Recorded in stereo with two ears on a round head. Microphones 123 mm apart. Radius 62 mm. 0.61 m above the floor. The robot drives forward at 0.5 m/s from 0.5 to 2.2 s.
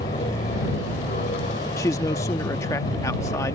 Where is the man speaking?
20° left (ahead or behind).